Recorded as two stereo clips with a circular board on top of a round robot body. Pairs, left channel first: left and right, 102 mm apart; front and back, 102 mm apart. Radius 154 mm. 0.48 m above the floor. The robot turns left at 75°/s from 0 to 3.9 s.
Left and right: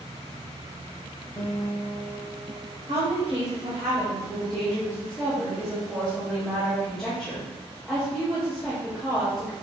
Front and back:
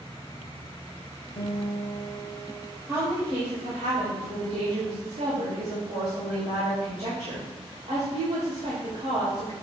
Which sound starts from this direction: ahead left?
A guitar, at 1.4 s.